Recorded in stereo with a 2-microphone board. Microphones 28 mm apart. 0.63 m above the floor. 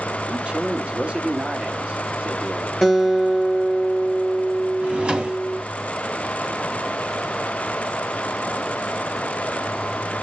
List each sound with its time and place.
0.3 s a man speaking: 45° right (ahead or behind), 1.5 m
2.8 s a guitar: 10° right (ahead or behind), 7 m
4.8 s a drawer: 40° right (ahead or behind), 1.9 m